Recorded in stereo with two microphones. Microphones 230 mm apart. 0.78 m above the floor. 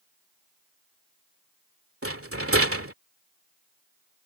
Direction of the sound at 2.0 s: 75° right (ahead or behind).